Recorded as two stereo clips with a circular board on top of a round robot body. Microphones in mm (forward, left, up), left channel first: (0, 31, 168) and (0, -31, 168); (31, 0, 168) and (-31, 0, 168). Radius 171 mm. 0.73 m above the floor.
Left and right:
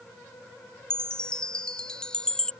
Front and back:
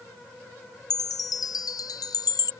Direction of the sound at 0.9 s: 15° left.